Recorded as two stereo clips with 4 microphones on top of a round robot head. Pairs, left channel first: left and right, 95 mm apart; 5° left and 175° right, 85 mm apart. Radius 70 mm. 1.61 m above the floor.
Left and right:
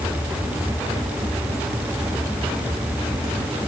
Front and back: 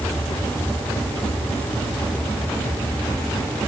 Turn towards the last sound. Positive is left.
No sound to turn to.